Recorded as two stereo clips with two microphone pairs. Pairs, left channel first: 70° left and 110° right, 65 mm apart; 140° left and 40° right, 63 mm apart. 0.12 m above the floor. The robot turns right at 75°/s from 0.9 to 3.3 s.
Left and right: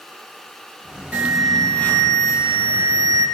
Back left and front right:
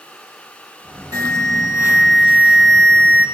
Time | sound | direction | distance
1.1 | an alarm | 45° right | 4 m